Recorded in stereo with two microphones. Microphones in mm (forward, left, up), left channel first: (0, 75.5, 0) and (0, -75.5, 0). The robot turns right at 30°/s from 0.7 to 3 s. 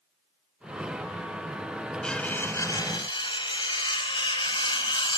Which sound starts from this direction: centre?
Cutlery clinking, at 2.0 s.